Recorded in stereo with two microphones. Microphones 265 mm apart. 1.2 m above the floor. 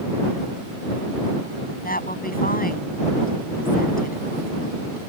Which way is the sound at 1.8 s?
35° left (ahead or behind).